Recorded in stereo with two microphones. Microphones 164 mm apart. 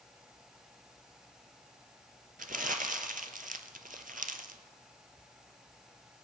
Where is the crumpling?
60° right (ahead or behind), 0.8 m.